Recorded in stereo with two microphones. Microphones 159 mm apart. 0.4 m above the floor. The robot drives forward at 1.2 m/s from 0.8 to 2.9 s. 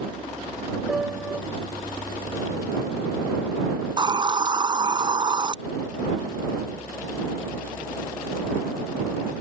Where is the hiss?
30° right (ahead or behind).